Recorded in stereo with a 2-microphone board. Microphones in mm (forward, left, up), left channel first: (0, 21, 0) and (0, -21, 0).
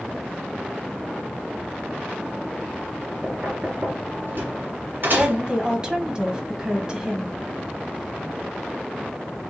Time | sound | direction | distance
3.2 | knocking | 55° right (ahead or behind) | 2 m
5.2 | a woman speaking | 20° right (ahead or behind) | 1.0 m